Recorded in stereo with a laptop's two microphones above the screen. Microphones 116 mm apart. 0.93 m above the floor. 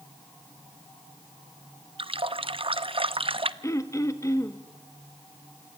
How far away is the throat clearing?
About 1.4 m.